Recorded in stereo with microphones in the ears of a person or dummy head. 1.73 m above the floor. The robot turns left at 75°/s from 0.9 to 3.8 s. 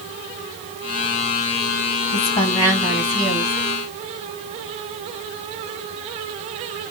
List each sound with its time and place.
2.1 s a woman speaking: 60° left, 3 m; by 3.5 s 50° right, 3 m